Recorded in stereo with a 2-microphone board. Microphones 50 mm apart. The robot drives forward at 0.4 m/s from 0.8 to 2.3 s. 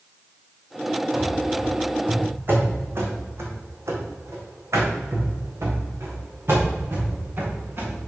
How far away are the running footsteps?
About 3 m.